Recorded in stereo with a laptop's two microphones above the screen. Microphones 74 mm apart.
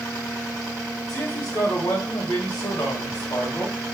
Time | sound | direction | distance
1.1 | a man speaking | 60° left (ahead or behind) | 1.3 m